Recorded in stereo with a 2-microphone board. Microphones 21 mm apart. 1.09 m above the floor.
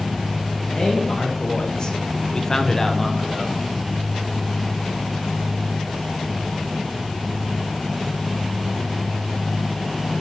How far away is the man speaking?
About 1.8 m.